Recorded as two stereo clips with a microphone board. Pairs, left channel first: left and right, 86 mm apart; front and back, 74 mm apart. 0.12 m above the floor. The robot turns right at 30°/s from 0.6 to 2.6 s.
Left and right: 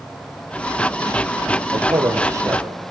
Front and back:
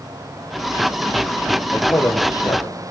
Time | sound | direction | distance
1.7 | a man speaking | 55° right | 4 m